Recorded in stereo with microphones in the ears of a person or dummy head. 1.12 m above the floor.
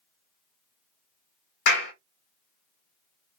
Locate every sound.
1.7 s a clap: 60° left (ahead or behind), 0.7 m